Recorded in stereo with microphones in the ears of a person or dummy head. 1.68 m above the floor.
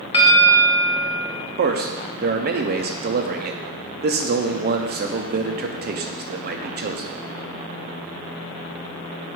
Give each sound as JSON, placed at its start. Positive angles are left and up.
{"t": 0.1, "sound": "a bell", "side_deg": 30, "distance_m": 0.9}
{"t": 1.6, "sound": "a man speaking", "side_deg": -50, "distance_m": 0.6}